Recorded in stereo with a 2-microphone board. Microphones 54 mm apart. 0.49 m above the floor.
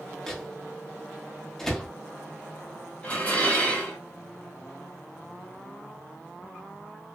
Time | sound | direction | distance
0.3 | a microwave | 5° left (ahead or behind) | 0.6 m
3.0 | dishes clattering | 25° left (ahead or behind) | 0.9 m